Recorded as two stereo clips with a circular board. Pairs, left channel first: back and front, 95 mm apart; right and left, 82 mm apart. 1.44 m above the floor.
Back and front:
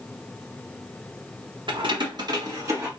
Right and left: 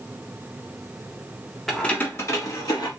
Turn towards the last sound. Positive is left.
turn(degrees=-55)